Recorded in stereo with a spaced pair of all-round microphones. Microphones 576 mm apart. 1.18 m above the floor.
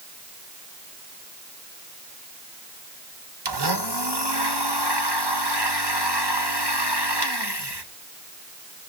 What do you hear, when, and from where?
3.5 s a blender: 45° right (ahead or behind), 1.4 m